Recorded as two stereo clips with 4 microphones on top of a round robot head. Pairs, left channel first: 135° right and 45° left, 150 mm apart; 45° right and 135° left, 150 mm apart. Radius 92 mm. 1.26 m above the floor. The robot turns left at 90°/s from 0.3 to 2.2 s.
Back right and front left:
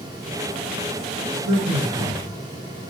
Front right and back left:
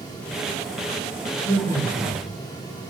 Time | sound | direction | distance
1.4 | a man speaking | 40° left | 1.2 m